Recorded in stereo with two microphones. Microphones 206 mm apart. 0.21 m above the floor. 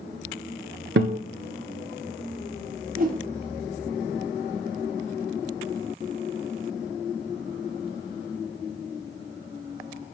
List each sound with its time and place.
1.0 s a guitar: 65° right (ahead or behind), 0.7 m
3.0 s a whoosh: 45° right (ahead or behind), 1.3 m